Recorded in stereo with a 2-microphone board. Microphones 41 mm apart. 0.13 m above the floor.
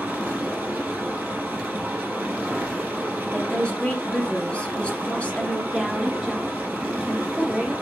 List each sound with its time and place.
0.0 s running water: 50° right (ahead or behind), 1.6 m
3.3 s a woman speaking: 30° left (ahead or behind), 1.7 m
5.7 s a woman speaking: 10° right (ahead or behind), 2 m